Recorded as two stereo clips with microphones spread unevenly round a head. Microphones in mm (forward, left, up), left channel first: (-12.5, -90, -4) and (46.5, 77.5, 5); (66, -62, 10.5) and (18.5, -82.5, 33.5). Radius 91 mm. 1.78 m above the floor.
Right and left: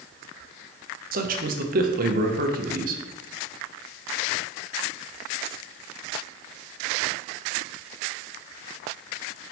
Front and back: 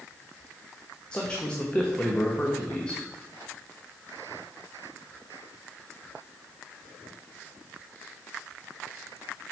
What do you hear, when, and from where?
1.1 s a man speaking: 115° left, 0.7 m